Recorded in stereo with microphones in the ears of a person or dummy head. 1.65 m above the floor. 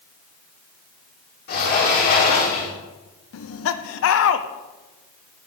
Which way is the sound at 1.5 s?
50° left (ahead or behind).